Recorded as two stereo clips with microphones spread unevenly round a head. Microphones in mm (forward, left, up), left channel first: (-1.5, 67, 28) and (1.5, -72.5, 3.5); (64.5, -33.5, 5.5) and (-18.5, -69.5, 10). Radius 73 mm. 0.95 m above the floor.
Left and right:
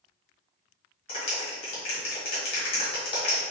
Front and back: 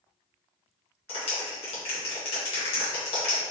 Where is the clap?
40° left, 1.3 m.